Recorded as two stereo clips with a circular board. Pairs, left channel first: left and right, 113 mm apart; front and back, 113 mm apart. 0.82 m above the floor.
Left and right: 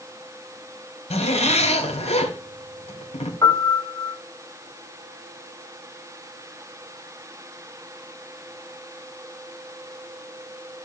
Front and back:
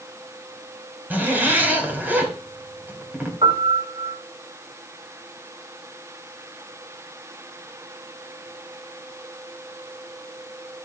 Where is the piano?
150° left, 3 m.